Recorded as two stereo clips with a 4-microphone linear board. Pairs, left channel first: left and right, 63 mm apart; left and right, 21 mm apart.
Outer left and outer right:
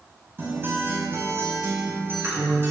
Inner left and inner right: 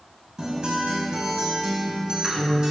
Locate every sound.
0.4 s a guitar: 35° right (ahead or behind), 5 m